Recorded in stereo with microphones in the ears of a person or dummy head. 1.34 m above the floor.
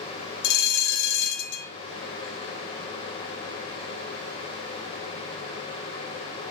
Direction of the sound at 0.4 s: 65° left (ahead or behind).